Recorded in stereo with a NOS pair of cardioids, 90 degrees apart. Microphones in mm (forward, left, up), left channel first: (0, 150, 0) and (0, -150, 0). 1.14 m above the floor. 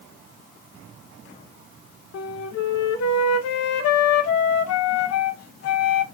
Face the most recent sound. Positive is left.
turn(degrees=55)